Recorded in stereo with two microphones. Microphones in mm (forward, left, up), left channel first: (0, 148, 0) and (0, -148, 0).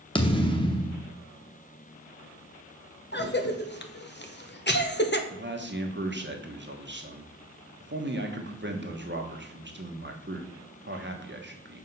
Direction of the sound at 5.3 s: 40° right (ahead or behind).